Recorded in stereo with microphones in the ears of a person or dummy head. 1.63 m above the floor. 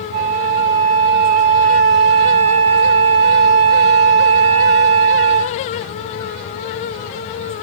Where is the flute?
30° right (ahead or behind), 1.1 m.